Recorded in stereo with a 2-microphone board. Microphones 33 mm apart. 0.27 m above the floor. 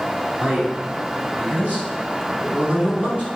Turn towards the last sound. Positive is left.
turn(degrees=-50)  # may be behind; listen again after turning